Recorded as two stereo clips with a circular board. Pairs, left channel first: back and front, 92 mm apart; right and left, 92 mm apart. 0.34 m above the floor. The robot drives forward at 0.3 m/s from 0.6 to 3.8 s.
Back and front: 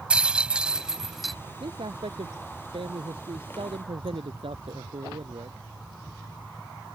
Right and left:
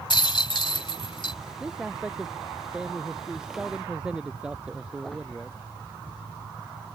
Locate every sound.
0.1 s a rattle: 75° right; by 1.4 s 90° right
1.6 s a man speaking: 10° left